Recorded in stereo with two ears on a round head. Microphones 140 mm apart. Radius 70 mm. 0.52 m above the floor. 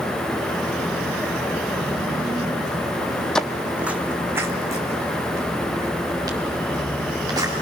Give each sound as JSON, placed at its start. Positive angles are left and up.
{"t": 3.4, "sound": "footsteps", "side_deg": 5, "distance_m": 0.7}